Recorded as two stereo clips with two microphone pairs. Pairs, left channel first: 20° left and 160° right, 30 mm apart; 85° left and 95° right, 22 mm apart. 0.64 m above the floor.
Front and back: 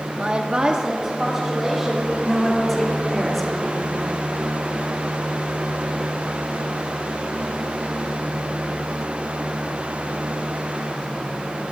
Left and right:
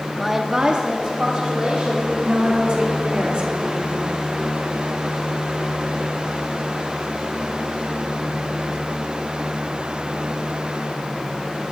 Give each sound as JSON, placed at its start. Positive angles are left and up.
{"t": 0.2, "sound": "a woman speaking", "azimuth_deg": 175, "distance_m": 0.8}
{"t": 2.2, "sound": "a woman speaking", "azimuth_deg": -65, "distance_m": 3.0}